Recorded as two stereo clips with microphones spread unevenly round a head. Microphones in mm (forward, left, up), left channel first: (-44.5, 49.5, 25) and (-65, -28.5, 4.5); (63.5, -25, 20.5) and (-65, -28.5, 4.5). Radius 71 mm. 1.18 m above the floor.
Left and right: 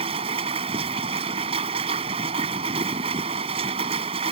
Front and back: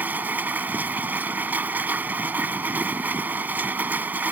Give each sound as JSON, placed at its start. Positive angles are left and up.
{"t": 0.0, "sound": "a machine running", "azimuth_deg": -100}